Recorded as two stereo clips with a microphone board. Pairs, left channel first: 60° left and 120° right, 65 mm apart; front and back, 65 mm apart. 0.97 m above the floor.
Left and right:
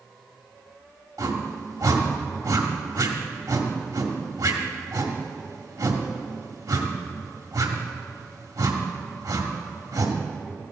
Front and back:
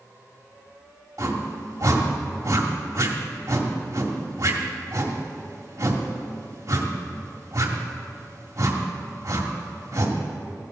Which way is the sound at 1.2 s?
135° right.